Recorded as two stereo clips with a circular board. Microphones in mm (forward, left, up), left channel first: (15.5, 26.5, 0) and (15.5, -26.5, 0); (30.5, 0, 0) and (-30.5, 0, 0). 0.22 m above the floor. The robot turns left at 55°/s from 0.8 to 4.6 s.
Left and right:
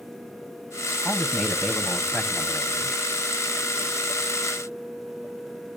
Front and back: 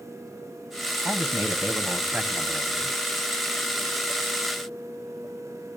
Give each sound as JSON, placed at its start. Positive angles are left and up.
{"t": 1.1, "sound": "a man speaking", "azimuth_deg": -175, "distance_m": 1.3}